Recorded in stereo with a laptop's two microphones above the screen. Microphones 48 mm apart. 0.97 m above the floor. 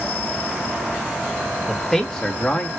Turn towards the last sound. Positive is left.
turn(degrees=30)  # may be behind; listen again after turning